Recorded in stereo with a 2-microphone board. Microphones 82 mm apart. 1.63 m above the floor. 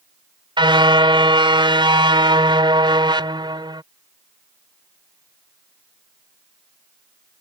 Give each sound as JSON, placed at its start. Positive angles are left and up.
{"t": 0.6, "sound": "a car horn", "side_deg": -75}